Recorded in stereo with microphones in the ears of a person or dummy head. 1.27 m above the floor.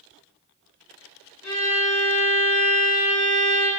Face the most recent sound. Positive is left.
turn(degrees=65)  # may be behind; listen again after turning